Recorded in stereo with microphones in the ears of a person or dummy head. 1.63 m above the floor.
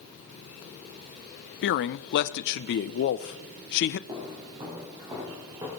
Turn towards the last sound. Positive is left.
turn(degrees=-15)  # may be behind; listen again after turning